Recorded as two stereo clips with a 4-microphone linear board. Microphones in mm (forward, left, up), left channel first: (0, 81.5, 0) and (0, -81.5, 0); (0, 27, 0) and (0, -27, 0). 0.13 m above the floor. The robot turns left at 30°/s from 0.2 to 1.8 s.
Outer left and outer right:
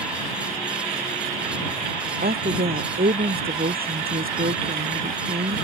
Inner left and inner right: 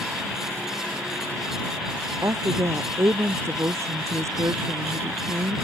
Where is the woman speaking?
65° right (ahead or behind).